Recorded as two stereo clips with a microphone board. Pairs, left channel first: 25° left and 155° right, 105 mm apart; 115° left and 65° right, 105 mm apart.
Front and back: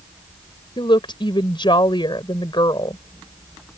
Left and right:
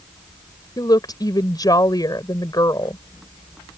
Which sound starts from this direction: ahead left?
A woman speaking, at 0.8 s.